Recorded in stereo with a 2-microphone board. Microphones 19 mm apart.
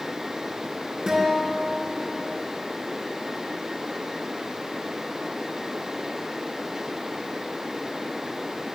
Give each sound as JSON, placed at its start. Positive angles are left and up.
{"t": 1.1, "sound": "a guitar", "side_deg": -45, "distance_m": 3.0}